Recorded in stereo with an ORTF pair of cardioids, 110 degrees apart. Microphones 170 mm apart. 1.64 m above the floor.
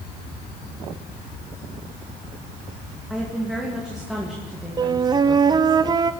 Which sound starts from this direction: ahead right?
A flute, at 4.8 s.